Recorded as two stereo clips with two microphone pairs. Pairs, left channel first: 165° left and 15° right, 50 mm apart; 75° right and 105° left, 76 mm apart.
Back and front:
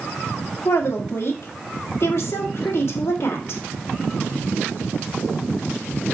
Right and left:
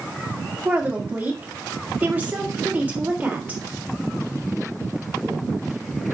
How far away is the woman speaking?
About 1.6 m.